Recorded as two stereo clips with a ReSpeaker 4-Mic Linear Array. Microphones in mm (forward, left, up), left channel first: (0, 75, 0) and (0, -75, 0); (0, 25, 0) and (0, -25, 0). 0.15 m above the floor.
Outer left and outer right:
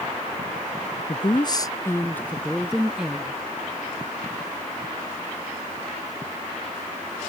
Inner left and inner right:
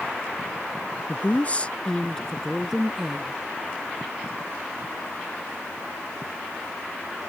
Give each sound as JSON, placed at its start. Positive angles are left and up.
{"t": 1.1, "sound": "a woman speaking", "side_deg": 40}